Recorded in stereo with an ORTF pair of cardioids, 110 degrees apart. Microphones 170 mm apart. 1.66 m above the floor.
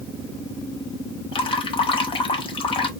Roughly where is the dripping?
Ahead left.